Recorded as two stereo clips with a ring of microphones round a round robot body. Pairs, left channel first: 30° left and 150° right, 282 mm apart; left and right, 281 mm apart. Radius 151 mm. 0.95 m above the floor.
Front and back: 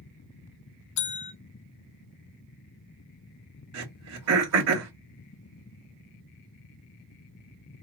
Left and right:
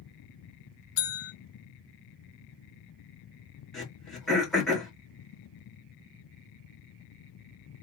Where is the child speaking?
No child speaking in this recording.